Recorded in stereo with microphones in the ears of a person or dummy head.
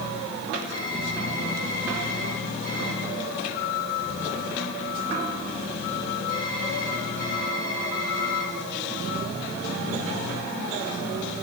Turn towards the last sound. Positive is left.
turn(degrees=-70)  # may be behind; listen again after turning